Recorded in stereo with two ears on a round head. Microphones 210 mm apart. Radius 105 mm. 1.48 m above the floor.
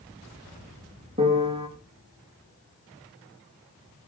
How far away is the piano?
About 2.5 m.